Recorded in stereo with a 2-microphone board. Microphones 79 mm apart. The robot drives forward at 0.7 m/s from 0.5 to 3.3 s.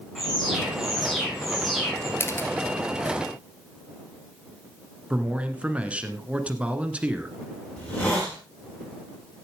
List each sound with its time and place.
0.1 s an alarm: 5° left (ahead or behind), 7.5 m
2.2 s a camera shutter: 30° left (ahead or behind), 1.4 m
5.1 s a man speaking: 15° right (ahead or behind), 1.5 m
7.8 s a hiss: 15° left (ahead or behind), 6 m